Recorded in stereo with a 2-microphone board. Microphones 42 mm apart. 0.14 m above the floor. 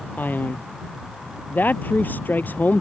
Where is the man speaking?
45° left (ahead or behind).